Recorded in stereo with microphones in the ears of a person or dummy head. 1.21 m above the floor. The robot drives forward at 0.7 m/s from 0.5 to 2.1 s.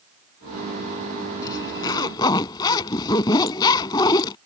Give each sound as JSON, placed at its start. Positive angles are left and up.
{"t": 1.4, "sound": "a zipper", "side_deg": 20}